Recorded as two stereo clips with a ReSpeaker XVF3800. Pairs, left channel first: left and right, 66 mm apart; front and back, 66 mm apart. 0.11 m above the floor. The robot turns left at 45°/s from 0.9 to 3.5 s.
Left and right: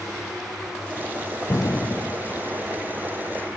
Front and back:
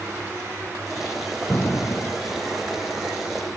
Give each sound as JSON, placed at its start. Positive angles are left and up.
{"t": 1.5, "sound": "an explosion", "azimuth_deg": 60, "distance_m": 0.6}